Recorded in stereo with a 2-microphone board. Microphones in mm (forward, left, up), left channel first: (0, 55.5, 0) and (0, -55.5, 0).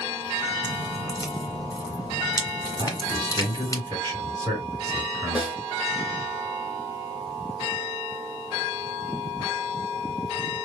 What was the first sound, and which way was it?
Dripping, 35° left (ahead or behind).